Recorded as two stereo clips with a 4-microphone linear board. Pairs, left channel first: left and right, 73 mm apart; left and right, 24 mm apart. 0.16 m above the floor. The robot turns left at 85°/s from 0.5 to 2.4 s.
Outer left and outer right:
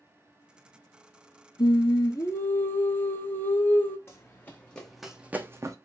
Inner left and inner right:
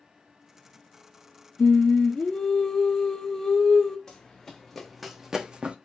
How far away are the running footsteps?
About 0.9 m.